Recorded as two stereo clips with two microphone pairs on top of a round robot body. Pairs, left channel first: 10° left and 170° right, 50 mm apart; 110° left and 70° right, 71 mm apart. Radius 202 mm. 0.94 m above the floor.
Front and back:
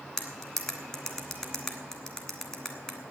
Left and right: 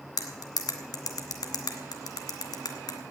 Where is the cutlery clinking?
80° left, 1.5 m.